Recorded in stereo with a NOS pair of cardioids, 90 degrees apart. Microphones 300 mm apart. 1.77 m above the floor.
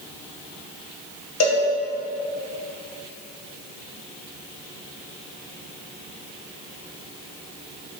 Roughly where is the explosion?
I don't hear an explosion.